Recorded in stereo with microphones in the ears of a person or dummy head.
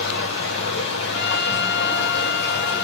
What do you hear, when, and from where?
0.0 s running water: 60° left (ahead or behind), 2 m
1.1 s a trumpet: 60° left (ahead or behind), 4 m